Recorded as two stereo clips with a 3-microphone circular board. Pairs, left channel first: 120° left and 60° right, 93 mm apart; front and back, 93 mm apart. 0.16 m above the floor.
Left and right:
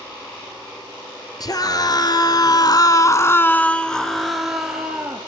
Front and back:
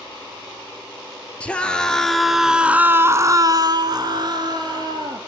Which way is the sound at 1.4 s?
75° left.